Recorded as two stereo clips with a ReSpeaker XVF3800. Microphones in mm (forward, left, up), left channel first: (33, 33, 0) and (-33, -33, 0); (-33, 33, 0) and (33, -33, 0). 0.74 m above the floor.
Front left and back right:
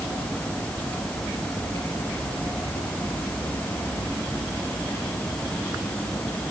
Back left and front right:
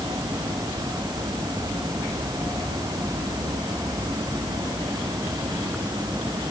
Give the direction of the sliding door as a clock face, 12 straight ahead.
No sliding door in this recording.